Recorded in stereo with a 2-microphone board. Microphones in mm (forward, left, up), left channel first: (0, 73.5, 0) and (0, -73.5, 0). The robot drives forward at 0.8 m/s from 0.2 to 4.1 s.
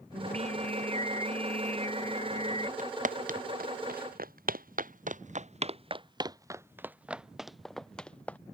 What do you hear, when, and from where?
0.1 s singing: 50° right (ahead or behind); by 2.7 s 45° right (ahead or behind)
2.8 s footsteps: 60° right (ahead or behind); by 8.4 s 10° left (ahead or behind)